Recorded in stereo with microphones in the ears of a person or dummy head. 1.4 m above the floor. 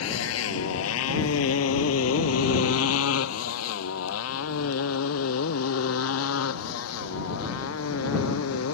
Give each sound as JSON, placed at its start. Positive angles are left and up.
{"t": 0.0, "sound": "a motorcycle", "side_deg": 80}